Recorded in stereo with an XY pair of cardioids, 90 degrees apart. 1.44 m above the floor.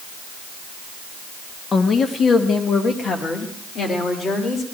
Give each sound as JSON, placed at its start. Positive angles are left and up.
{"t": 1.7, "sound": "a woman speaking", "azimuth_deg": 45, "distance_m": 1.2}